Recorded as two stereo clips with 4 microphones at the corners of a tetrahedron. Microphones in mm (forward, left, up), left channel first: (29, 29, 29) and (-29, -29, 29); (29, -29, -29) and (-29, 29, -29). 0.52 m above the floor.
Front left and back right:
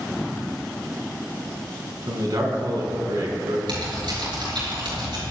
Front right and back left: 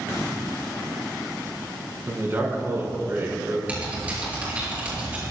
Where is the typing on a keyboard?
150° right, 7 m.